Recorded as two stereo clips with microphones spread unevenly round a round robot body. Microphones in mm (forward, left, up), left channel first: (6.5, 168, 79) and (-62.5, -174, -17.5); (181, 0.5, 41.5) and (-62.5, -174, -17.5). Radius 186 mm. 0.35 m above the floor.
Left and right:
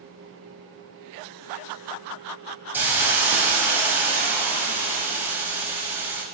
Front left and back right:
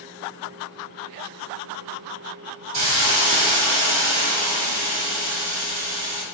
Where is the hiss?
Straight behind, 0.7 m.